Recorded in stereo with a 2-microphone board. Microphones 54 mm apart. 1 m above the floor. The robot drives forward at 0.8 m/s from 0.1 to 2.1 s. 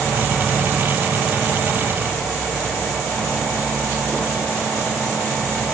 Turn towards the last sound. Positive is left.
No sound to turn to.